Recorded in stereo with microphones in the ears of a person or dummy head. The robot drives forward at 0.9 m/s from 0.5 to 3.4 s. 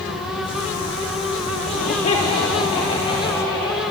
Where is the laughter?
45° left (ahead or behind), 2 m; by 3.8 s 25° left (ahead or behind), 3.5 m.